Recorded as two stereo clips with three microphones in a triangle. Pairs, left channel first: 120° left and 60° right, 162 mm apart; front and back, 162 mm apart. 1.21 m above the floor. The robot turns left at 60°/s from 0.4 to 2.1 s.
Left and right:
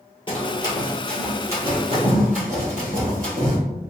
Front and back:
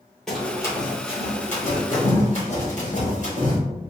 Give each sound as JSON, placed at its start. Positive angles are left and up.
{"t": 0.3, "sound": "running footsteps", "azimuth_deg": 85, "distance_m": 1.5}